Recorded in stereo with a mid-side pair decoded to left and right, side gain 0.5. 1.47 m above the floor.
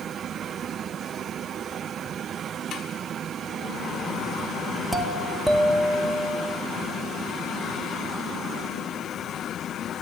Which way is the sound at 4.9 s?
10° right.